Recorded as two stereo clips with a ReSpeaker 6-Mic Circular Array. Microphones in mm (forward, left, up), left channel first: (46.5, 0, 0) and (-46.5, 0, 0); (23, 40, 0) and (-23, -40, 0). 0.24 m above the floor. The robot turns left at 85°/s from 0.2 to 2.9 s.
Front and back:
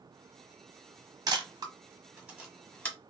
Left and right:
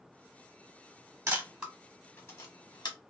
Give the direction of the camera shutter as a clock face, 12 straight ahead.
6 o'clock.